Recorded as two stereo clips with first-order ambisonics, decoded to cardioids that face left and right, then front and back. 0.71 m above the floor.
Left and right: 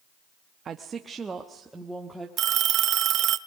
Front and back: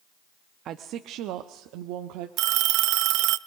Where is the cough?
No cough in this recording.